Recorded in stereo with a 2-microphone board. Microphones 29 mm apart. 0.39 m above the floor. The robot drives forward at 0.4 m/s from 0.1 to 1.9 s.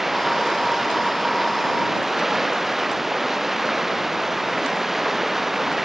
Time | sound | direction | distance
0.0 | running water | 5° right (ahead or behind) | ?